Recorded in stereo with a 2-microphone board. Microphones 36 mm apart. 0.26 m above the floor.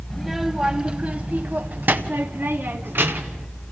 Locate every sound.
0.1 s a child speaking: centre (ahead or behind), 0.9 m; by 3.5 s 70° right (ahead or behind), 1.8 m